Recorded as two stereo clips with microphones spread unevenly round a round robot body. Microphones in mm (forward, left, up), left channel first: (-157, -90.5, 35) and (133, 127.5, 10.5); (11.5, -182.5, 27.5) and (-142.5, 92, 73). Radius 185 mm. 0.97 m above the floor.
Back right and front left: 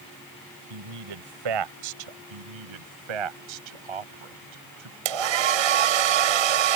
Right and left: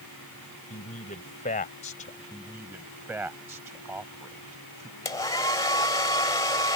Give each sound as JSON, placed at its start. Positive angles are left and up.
{"t": 0.7, "sound": "a man speaking", "azimuth_deg": 10}
{"t": 2.3, "sound": "a man speaking", "azimuth_deg": 35}
{"t": 5.0, "sound": "a hair dryer", "azimuth_deg": 20}